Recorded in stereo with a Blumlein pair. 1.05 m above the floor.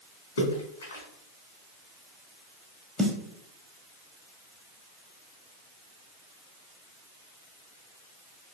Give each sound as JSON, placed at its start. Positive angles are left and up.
{"t": 0.4, "sound": "a splash", "azimuth_deg": 65, "distance_m": 1.0}
{"t": 3.0, "sound": "a snare drum", "azimuth_deg": -10, "distance_m": 0.5}